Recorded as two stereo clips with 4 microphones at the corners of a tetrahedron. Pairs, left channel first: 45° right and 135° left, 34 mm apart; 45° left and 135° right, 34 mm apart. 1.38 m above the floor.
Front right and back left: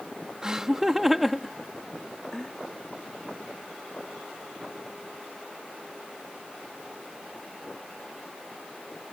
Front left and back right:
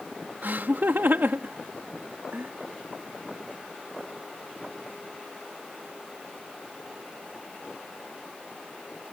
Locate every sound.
0.4 s laughter: 155° right; by 2.5 s 115° right